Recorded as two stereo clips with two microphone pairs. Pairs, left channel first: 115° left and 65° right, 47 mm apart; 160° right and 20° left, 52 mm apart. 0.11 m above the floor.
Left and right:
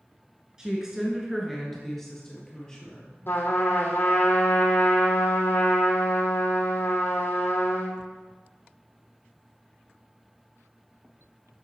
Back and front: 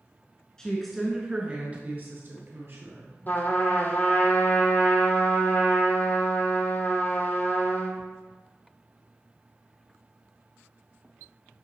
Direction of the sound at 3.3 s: 150° left.